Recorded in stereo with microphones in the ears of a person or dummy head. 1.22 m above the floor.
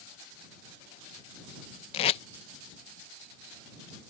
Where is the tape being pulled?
35° left (ahead or behind).